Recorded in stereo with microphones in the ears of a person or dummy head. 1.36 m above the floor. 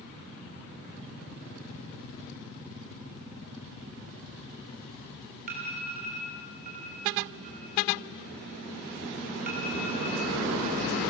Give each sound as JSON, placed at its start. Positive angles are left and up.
{"t": 5.5, "sound": "an alarm", "side_deg": -45, "distance_m": 4.5}